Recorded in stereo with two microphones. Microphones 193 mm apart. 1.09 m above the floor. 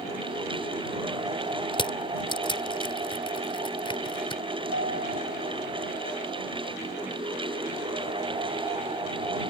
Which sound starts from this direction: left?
Crushing, at 1.7 s.